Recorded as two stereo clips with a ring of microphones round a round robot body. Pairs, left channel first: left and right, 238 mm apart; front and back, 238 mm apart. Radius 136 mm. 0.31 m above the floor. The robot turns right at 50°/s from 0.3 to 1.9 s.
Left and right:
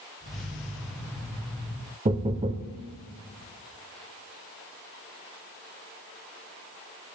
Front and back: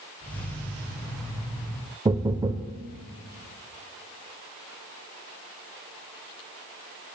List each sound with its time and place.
2.0 s knocking: 125° right, 0.7 m